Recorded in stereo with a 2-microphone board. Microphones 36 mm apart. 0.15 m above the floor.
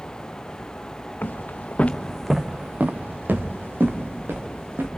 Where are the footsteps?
60° left (ahead or behind), 1.3 m; by 4.9 s 85° right, 3 m.